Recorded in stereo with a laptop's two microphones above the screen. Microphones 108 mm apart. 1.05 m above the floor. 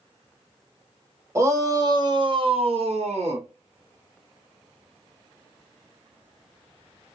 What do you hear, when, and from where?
1.4 s a shout: 25° right (ahead or behind), 1.3 m; by 3.5 s 70° right (ahead or behind), 1.2 m